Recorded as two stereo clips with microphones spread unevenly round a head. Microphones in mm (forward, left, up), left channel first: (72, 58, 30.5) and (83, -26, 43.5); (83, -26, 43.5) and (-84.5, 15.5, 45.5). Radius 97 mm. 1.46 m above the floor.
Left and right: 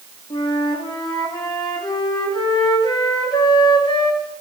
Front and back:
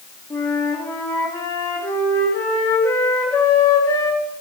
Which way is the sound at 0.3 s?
60° left.